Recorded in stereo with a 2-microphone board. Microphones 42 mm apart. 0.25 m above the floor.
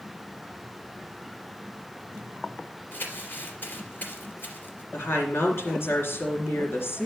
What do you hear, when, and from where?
2.9 s crumpling: 55° left (ahead or behind), 2.5 m
4.9 s a woman speaking: 70° left (ahead or behind), 3 m